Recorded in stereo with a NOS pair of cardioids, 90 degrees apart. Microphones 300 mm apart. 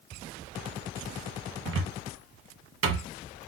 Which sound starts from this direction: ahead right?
A cupboard door, at 1.6 s.